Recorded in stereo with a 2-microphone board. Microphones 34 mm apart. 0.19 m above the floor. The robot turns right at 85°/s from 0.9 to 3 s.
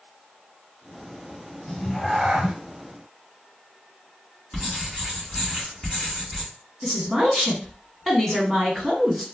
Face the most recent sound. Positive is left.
turn(degrees=10)  # may be behind; listen again after turning